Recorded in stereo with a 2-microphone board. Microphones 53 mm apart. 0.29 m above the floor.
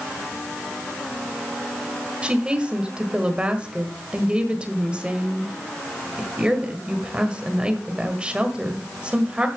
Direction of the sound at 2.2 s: 20° right (ahead or behind).